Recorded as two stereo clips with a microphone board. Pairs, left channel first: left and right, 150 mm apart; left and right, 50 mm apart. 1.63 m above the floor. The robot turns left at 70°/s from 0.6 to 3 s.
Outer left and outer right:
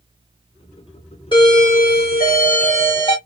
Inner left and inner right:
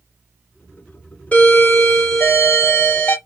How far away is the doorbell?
About 1.0 m.